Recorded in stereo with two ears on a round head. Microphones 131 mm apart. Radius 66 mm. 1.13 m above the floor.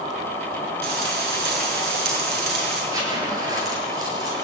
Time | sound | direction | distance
0.8 | frying | 85° right | 7 m
2.9 | a zipper | 25° right (ahead or behind) | 7.5 m